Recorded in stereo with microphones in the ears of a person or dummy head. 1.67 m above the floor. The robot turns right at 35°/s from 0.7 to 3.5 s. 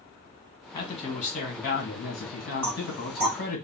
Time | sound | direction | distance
0.7 | a man speaking | 30° left | 1.6 m
2.6 | knocking | 5° right (ahead or behind) | 0.9 m